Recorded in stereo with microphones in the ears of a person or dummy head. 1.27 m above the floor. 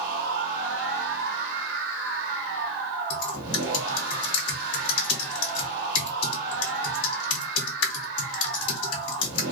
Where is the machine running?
65° right (ahead or behind), 0.9 m.